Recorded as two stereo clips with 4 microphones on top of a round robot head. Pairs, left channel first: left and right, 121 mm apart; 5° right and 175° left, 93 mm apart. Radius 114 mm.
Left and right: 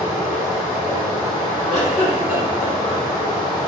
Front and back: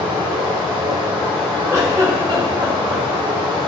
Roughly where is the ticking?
No ticking in this recording.